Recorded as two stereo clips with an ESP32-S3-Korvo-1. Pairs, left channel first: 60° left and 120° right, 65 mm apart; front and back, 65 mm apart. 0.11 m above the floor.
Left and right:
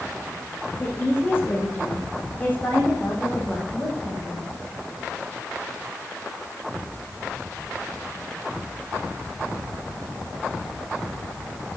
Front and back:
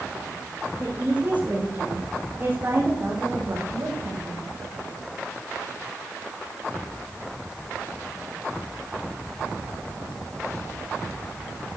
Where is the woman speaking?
110° left, 6 m; by 4.5 s 130° left, 7 m.